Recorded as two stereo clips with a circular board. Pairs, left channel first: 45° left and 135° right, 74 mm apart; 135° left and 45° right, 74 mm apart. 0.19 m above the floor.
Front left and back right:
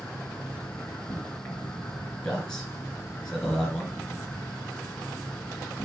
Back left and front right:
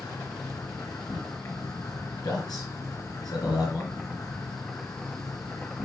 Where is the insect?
105° left, 3.5 m.